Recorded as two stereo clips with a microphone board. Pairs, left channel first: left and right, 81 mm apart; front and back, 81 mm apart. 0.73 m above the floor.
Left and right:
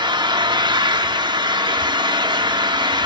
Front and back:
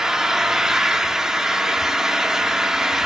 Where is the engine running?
95° right, 1.0 m.